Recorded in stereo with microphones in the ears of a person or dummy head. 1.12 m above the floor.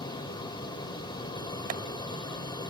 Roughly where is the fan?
Left.